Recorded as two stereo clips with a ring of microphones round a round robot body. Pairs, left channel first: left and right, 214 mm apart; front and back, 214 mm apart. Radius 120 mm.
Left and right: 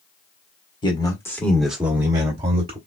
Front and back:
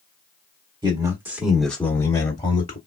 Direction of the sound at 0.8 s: 130° left.